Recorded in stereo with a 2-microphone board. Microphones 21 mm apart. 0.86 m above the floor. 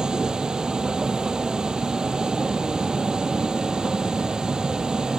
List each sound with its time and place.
0.0 s a vehicle: 30° right (ahead or behind)